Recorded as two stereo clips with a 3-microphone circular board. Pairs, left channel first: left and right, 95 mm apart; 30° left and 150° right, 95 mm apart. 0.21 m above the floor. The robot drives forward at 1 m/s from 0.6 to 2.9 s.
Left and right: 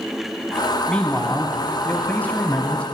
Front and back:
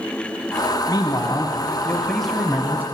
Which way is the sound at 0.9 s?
15° left.